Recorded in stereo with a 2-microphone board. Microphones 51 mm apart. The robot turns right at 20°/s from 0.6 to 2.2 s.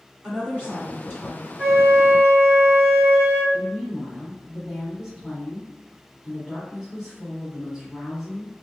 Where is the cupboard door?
No cupboard door in this recording.